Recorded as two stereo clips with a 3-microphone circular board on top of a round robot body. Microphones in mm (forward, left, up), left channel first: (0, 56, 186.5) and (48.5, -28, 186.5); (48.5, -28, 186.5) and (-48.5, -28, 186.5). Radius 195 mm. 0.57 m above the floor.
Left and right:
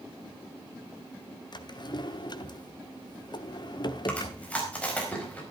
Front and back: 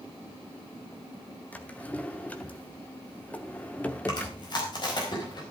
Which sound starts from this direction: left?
A drawer, at 1.5 s.